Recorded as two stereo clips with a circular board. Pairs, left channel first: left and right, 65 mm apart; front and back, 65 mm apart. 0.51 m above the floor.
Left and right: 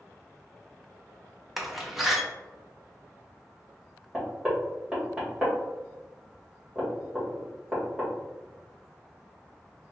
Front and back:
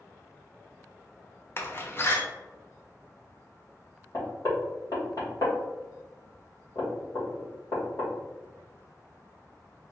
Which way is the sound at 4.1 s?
15° right.